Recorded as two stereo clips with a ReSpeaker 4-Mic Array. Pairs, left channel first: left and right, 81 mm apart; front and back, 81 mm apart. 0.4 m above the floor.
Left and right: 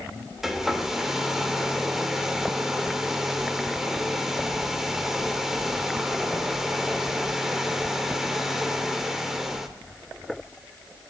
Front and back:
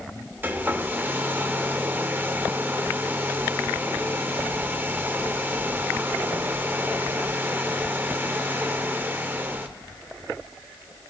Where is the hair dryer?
170° right, 0.7 m.